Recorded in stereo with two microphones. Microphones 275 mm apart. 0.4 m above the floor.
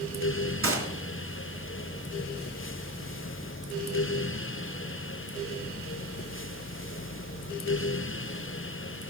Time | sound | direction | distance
0.6 | a gunshot | 55° right (ahead or behind) | 3 m